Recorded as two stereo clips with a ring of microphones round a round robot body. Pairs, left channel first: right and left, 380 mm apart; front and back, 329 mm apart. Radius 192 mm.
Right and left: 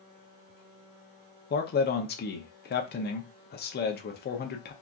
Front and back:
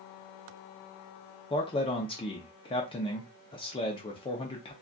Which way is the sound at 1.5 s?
60° right.